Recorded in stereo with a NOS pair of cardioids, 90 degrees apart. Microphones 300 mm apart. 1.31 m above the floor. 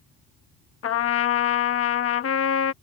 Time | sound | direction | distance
0.8 | a trumpet | 50° left | ?